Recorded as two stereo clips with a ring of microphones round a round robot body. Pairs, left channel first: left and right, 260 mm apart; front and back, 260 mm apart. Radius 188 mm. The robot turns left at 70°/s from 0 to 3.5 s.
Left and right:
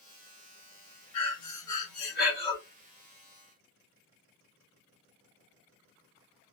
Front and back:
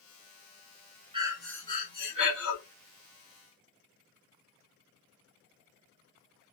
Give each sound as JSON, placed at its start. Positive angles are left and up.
{"t": 1.1, "sound": "breathing", "azimuth_deg": 110, "distance_m": 2.0}